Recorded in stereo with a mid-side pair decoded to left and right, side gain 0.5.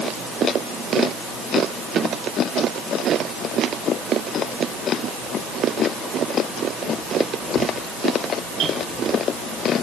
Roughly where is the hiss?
I don't hear a hiss.